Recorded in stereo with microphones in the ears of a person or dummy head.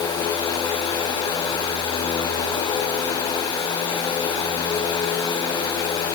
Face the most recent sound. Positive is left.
No sound to turn to.